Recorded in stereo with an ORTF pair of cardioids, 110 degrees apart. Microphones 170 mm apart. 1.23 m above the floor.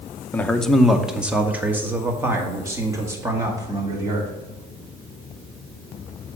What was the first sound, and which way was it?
A man speaking, 10° left.